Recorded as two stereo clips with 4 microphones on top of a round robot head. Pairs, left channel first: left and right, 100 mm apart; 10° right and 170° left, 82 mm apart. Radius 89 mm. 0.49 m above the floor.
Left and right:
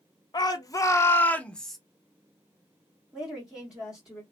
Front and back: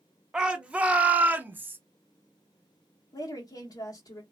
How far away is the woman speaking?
About 1.1 m.